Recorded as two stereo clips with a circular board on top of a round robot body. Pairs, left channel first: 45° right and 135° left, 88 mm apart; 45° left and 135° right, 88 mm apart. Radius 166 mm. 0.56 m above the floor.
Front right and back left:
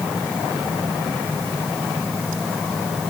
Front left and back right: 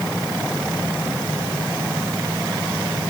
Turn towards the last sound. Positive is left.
No sound to turn to.